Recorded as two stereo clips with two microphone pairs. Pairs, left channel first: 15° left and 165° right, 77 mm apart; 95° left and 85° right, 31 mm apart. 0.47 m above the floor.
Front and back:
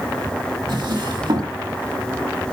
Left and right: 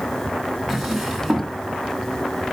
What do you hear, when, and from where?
0.7 s a drawer: 175° right, 3 m